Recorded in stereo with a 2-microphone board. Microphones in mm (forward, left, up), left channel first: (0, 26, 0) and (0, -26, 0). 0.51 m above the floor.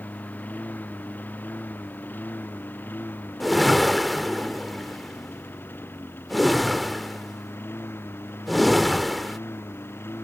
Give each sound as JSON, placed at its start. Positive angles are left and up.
{"t": 0.0, "sound": "a lawn mower", "side_deg": 30}
{"t": 3.4, "sound": "a whoosh", "side_deg": 0}